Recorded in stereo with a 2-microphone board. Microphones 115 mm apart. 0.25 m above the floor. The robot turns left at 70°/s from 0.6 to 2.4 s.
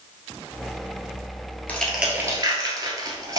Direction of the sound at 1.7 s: 15° left (ahead or behind).